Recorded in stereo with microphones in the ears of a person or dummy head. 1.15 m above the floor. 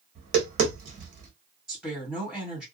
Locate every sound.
0.1 s tapping: 35° right (ahead or behind), 0.9 m
1.7 s a woman speaking: centre (ahead or behind), 1.4 m